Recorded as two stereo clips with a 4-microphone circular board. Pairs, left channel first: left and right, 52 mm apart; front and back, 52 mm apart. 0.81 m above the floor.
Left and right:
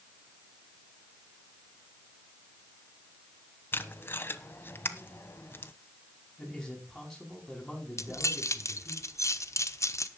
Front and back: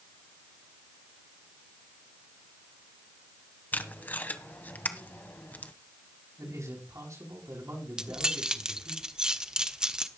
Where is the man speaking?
175° left, 7 m.